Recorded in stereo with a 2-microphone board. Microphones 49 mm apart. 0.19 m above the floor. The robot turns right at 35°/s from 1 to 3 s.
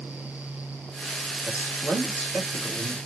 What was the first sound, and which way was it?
A man speaking, 155° right.